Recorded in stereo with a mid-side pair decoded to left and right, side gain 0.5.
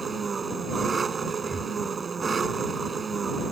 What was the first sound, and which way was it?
An engine running, 30° right.